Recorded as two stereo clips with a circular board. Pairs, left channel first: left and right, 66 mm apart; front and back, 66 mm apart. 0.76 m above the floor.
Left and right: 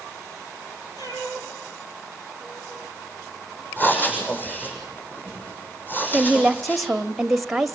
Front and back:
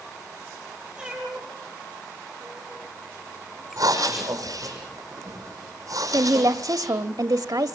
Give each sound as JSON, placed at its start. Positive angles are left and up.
{"t": 1.0, "sound": "a cat meowing", "azimuth_deg": 100, "distance_m": 10.0}
{"t": 3.8, "sound": "breathing", "azimuth_deg": 150, "distance_m": 5.5}
{"t": 6.1, "sound": "a woman speaking", "azimuth_deg": 180, "distance_m": 1.1}